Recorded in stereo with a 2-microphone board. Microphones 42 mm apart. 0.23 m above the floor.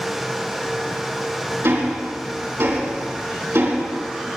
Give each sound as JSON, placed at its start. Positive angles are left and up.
{"t": 1.6, "sound": "ticking", "side_deg": -80, "distance_m": 4.0}